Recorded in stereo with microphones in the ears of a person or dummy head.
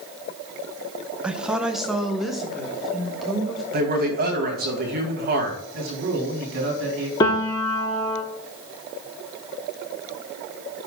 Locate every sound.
1.2 s a woman speaking: centre (ahead or behind), 0.6 m; by 3.6 s 5° left (ahead or behind), 2.0 m
3.7 s a man speaking: 45° right (ahead or behind), 2 m
5.7 s a man speaking: 60° right (ahead or behind), 3 m
7.2 s a piano: 20° left (ahead or behind), 1.0 m